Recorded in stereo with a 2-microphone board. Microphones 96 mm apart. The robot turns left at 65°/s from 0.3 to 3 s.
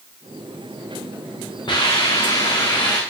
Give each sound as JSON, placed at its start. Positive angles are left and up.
{"t": 1.7, "sound": "a hiss", "azimuth_deg": 130, "distance_m": 7.0}